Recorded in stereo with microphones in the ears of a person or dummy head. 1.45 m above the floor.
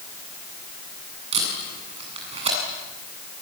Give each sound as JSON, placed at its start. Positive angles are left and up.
{"t": 1.3, "sound": "tape being pulled", "side_deg": -40, "distance_m": 8.0}